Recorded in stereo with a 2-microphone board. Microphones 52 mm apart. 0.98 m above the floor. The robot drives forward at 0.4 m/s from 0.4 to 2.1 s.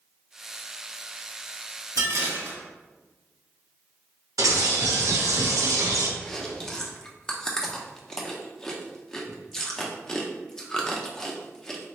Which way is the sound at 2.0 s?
80° right.